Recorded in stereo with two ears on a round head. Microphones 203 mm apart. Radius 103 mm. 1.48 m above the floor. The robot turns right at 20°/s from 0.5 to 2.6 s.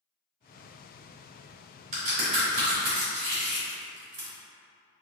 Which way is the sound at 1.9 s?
35° right (ahead or behind).